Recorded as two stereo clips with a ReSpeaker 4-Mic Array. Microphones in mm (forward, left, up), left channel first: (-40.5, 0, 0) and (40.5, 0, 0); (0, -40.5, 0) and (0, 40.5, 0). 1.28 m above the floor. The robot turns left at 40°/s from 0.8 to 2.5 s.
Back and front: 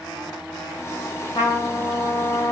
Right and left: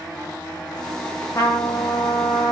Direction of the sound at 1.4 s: 145° right.